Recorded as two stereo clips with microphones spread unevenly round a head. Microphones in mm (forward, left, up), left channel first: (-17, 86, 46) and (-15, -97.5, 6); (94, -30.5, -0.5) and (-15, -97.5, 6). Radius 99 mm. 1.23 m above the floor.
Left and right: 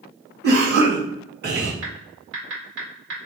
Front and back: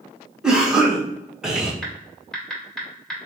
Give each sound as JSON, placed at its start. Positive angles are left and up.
{"t": 0.4, "sound": "a cough", "azimuth_deg": -65, "distance_m": 1.6}
{"t": 1.8, "sound": "typing on a keyboard", "azimuth_deg": -55, "distance_m": 2.0}